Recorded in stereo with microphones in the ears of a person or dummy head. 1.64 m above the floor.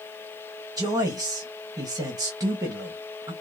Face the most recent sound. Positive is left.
turn(degrees=-20)  # may be behind; listen again after turning